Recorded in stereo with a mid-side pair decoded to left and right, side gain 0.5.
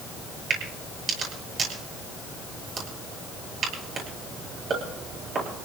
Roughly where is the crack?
Ahead right.